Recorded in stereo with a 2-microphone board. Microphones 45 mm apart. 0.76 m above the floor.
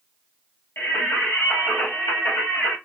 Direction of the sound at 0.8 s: 65° left (ahead or behind).